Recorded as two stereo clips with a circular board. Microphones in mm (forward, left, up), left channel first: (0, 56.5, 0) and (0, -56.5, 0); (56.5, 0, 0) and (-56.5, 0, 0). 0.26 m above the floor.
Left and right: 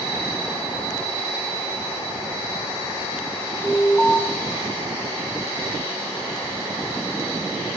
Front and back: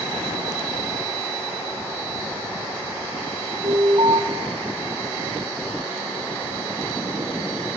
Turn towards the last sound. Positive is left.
turn(degrees=165)